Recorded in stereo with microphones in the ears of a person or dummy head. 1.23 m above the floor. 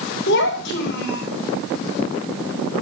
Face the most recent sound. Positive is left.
turn(degrees=65)  # may be behind; listen again after turning